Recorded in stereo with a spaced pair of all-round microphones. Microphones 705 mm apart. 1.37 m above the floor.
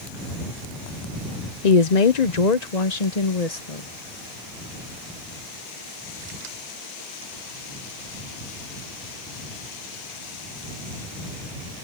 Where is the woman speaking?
65° left (ahead or behind); by 3.9 s 55° left (ahead or behind).